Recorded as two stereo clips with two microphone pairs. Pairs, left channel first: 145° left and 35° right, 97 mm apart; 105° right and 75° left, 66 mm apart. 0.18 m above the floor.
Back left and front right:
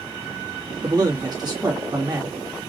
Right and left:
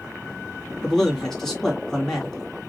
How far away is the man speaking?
About 2.0 m.